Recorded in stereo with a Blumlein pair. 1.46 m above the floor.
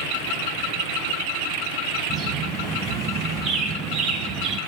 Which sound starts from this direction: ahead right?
A bird, at 2.1 s.